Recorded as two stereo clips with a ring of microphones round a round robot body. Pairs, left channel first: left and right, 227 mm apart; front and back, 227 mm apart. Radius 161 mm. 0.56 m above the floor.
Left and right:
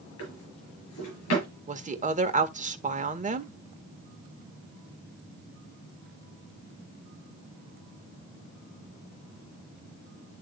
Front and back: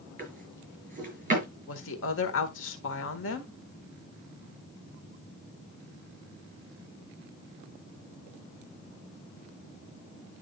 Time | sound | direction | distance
0.2 | a drawer | 125° left | 5.5 m
1.7 | a woman speaking | 35° right | 1.6 m